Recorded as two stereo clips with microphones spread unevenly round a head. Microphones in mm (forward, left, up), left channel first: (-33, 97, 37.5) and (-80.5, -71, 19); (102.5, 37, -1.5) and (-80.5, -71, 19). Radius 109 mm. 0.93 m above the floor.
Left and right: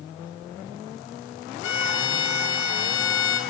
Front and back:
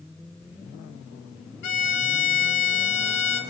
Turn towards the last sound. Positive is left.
turn(degrees=50)